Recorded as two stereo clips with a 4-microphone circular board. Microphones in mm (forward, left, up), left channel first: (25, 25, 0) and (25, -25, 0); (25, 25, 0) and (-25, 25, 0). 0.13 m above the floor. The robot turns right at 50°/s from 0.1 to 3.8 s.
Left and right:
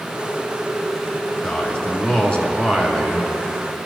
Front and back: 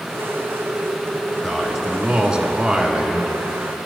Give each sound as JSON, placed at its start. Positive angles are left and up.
{"t": 1.4, "sound": "a man speaking", "azimuth_deg": 85, "distance_m": 1.2}